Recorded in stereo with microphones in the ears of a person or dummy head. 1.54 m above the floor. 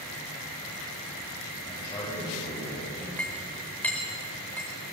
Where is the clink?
5° left (ahead or behind), 4.5 m.